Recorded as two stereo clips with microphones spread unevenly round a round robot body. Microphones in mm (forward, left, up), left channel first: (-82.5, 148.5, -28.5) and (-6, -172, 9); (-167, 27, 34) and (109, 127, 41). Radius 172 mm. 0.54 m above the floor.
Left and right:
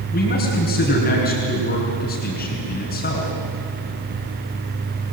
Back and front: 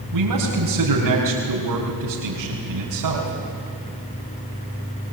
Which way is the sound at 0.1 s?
40° left.